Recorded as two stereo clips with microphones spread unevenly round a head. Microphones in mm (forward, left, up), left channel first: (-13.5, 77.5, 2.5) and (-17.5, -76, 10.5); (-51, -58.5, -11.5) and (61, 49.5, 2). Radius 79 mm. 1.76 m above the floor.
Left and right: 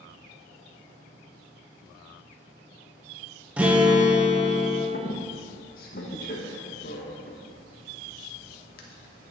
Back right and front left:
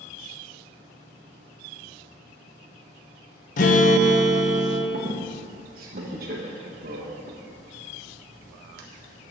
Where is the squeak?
60° left, 1.5 m.